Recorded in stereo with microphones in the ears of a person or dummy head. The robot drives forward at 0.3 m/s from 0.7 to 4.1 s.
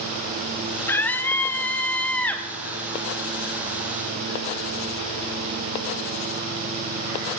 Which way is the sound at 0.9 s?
10° left (ahead or behind).